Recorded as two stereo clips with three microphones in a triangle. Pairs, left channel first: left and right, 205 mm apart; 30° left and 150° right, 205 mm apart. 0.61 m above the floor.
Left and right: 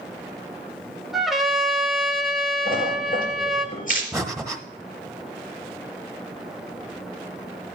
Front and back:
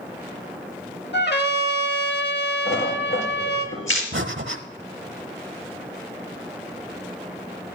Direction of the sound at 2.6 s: 40° left.